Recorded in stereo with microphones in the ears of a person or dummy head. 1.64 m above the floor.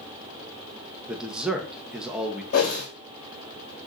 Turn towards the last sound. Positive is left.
turn(degrees=50)  # may be behind; listen again after turning